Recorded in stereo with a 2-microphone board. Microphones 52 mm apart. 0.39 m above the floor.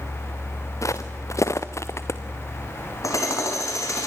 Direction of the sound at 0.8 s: 75° left (ahead or behind).